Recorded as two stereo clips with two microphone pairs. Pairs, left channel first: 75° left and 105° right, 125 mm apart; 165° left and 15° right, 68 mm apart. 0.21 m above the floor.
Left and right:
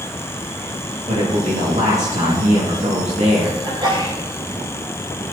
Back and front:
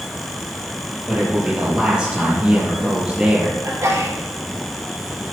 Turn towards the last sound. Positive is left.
turn(degrees=-55)